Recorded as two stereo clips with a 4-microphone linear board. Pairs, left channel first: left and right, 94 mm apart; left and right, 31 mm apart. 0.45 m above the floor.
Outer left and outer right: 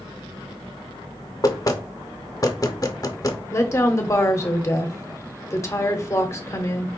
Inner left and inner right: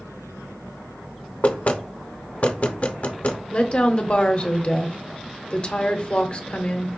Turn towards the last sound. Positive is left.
turn(degrees=30)  # may be behind; listen again after turning